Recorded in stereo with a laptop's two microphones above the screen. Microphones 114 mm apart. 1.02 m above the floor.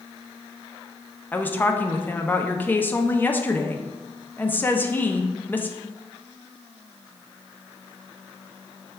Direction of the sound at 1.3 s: 15° left (ahead or behind).